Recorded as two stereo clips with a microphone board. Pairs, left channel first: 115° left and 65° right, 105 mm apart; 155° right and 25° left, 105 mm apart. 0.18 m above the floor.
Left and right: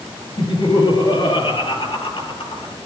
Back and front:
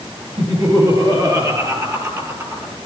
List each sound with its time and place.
0.4 s laughter: 65° left, 5.5 m; by 2.7 s 85° left, 4.5 m